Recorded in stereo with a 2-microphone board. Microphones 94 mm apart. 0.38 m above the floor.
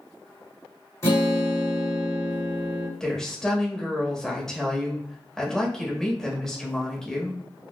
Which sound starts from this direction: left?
A guitar, at 1.0 s.